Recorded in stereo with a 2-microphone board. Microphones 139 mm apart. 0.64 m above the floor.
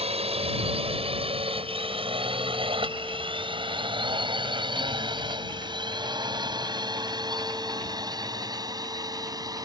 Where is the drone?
45° right (ahead or behind); by 9.7 s 25° right (ahead or behind).